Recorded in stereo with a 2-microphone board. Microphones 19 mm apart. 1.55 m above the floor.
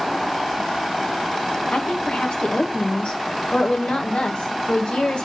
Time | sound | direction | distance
1.7 | a woman speaking | 75° left (ahead or behind) | 2 m